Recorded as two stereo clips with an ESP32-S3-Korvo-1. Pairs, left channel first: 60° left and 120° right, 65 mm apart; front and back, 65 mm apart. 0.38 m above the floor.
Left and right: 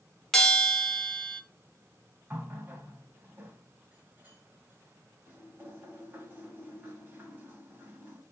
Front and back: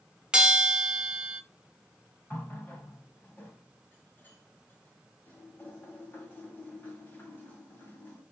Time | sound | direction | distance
0.3 | a bell | 130° left | 0.8 m
2.3 | a running tap | 55° right | 1.9 m